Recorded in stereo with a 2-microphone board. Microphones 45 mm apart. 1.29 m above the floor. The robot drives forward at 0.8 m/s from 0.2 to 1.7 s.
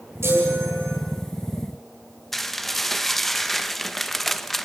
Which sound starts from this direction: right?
A chime, at 0.2 s.